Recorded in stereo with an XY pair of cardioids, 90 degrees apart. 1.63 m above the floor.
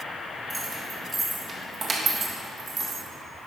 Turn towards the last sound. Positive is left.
turn(degrees=-60)